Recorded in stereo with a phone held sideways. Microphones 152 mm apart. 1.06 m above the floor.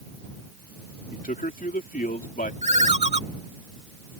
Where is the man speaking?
70° left (ahead or behind).